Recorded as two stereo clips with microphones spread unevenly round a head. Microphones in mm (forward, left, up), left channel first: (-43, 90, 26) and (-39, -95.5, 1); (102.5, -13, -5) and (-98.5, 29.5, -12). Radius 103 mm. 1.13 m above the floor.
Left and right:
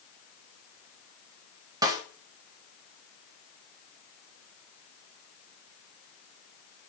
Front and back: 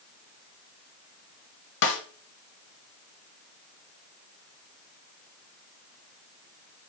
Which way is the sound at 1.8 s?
25° right.